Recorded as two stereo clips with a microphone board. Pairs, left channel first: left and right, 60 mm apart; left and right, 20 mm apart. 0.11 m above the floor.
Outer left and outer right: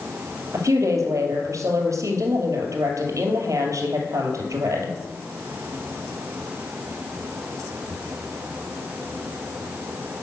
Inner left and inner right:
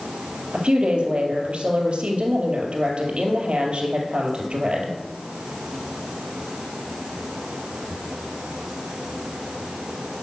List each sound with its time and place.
0.5 s a woman speaking: 60° right (ahead or behind), 2.5 m